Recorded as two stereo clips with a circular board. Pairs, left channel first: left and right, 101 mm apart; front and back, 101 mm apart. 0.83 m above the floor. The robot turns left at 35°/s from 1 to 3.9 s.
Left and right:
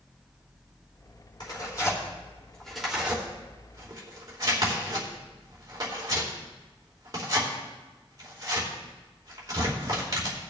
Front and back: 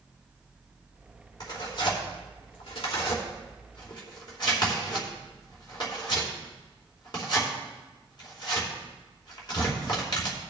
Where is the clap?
No clap in this recording.